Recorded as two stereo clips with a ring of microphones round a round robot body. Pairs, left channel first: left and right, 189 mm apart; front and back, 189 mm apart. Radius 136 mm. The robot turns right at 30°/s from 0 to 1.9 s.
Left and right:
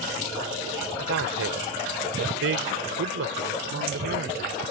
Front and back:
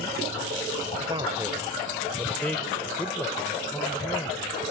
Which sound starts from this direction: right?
A man speaking, at 1.0 s.